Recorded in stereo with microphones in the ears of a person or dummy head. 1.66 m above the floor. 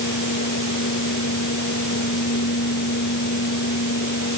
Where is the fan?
55° left (ahead or behind).